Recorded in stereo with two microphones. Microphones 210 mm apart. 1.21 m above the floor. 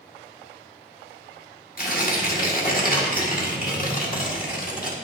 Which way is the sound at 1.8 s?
40° left (ahead or behind).